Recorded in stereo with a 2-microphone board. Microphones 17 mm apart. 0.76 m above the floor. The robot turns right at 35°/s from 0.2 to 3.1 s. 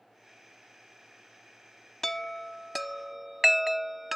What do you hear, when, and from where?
2.0 s a chime: 25° left (ahead or behind); by 4.2 s 15° right (ahead or behind)